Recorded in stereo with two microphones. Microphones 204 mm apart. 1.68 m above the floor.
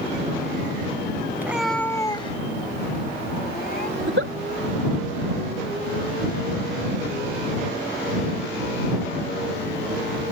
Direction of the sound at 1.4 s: 10° right (ahead or behind).